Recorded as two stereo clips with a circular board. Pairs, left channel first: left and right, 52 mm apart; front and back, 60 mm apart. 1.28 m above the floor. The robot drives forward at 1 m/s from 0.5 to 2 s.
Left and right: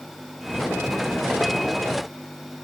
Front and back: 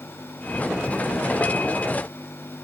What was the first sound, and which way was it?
Only background noise.